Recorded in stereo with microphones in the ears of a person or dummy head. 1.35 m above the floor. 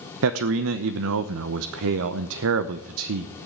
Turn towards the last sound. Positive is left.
turn(degrees=-75)  # may be behind; listen again after turning